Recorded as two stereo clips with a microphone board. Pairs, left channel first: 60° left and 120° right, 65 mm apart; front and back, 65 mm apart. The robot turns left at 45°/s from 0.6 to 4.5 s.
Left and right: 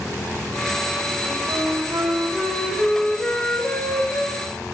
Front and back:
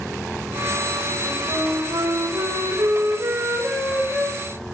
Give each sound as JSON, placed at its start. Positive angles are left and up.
{"t": 1.2, "sound": "a flute", "azimuth_deg": -135, "distance_m": 4.5}